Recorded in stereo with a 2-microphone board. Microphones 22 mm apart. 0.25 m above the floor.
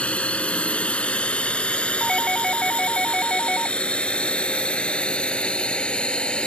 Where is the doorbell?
20° left (ahead or behind).